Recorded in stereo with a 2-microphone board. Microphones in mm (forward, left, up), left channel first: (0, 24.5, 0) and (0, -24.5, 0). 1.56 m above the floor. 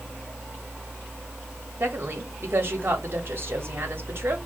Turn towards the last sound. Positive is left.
turn(degrees=-50)  # may be behind; listen again after turning